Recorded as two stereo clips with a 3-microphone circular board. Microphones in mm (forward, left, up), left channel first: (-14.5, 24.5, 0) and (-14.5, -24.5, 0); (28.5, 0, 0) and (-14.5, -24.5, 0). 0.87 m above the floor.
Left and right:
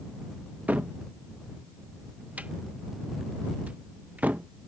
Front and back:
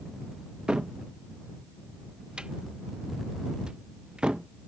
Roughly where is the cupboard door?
Right.